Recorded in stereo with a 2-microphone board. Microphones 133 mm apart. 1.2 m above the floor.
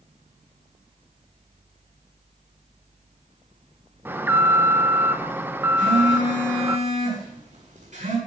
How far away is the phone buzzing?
About 7.5 m.